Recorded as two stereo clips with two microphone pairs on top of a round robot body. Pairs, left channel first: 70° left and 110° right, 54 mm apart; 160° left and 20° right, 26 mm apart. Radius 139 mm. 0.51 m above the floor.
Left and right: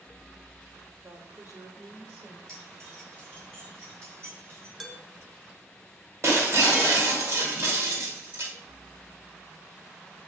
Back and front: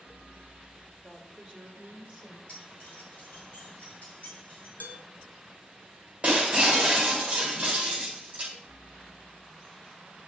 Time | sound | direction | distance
1.0 | a woman speaking | 95° right | 1.8 m
2.5 | keys jangling | 150° right | 4.5 m
4.8 | dishes clattering | 170° left | 1.7 m
6.2 | breaking glass | 70° right | 1.9 m